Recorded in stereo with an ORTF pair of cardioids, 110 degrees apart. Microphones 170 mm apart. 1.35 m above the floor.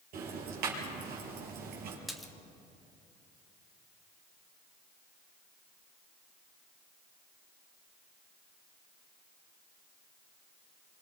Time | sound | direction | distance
0.1 | ticking | 70° right | 5.5 m
2.1 | a splash | straight ahead | 1.5 m